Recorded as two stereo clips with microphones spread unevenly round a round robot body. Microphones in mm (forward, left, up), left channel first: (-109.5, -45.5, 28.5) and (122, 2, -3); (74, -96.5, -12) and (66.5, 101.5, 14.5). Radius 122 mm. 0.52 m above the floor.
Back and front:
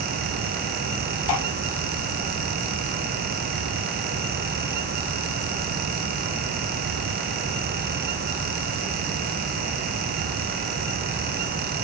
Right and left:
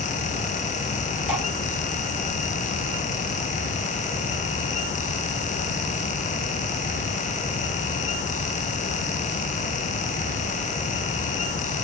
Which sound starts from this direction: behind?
Dripping, at 1.3 s.